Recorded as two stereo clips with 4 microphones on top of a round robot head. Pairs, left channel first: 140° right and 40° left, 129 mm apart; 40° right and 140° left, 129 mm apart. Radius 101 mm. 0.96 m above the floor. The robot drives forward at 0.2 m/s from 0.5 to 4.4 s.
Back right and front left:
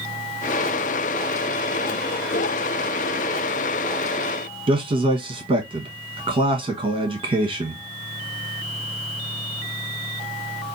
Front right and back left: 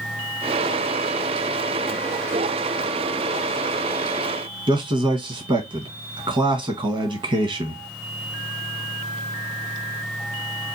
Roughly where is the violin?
I don't hear a violin.